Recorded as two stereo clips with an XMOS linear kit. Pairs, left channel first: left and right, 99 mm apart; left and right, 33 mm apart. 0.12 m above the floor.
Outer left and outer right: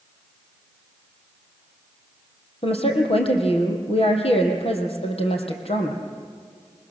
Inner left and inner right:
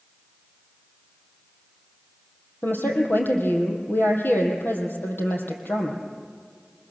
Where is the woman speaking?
70° left (ahead or behind), 3.5 m.